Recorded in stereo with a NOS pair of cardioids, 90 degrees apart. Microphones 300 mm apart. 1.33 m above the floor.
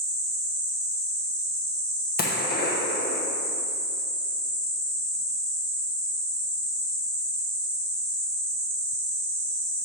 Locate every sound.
2.2 s a gunshot: 30° left, 0.9 m